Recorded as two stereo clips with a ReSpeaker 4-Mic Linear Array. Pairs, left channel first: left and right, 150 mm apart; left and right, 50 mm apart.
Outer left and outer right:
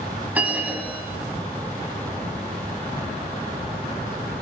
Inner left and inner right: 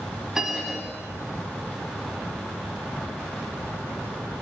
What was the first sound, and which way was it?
A bell, 10° right (ahead or behind).